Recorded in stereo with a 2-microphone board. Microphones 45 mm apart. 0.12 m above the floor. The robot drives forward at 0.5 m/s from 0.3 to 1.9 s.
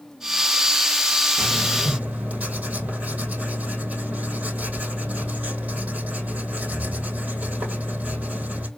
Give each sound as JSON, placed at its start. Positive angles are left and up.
{"t": 1.4, "sound": "writing", "side_deg": -40, "distance_m": 2.5}